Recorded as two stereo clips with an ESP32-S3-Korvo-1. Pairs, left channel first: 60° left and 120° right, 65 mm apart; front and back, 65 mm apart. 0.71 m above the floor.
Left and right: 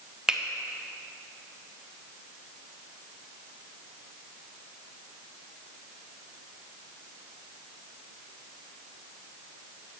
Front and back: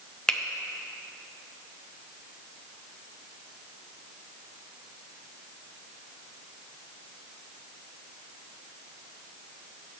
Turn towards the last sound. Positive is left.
turn(degrees=-60)